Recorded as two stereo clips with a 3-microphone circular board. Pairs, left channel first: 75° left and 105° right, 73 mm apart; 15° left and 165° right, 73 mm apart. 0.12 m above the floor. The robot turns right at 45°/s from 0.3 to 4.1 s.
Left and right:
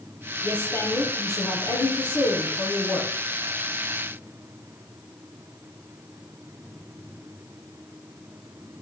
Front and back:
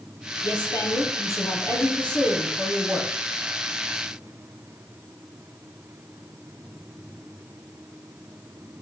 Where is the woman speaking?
10° left, 3 m; by 3.1 s 130° left, 3 m.